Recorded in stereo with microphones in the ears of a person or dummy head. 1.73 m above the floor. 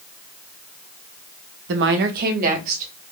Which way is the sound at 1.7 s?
65° right (ahead or behind).